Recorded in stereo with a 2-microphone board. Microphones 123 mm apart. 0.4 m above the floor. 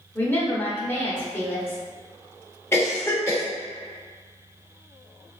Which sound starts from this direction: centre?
A woman speaking, at 0.1 s.